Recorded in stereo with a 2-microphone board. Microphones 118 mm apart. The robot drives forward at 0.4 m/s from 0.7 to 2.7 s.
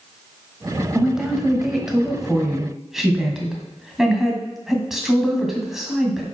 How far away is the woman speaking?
About 1.2 m.